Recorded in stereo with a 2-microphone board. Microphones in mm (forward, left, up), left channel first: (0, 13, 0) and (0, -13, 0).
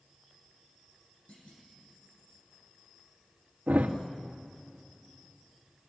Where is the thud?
80° right, 2.5 m.